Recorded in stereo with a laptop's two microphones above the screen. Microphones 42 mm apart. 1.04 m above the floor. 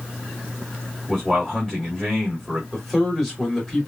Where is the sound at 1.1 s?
5° left (ahead or behind), 2 m.